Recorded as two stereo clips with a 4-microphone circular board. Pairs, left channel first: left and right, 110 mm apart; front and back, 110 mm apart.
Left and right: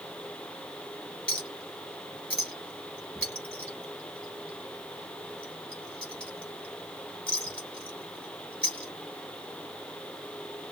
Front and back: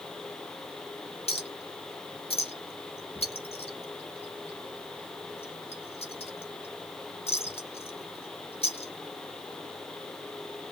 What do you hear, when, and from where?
1.3 s a clink: 10° left, 2 m